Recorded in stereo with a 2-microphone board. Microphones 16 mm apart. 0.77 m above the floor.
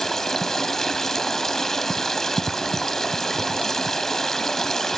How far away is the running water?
About 0.8 m.